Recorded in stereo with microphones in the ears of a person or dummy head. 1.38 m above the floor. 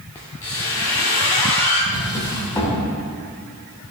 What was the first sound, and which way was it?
A squeak, 15° left (ahead or behind).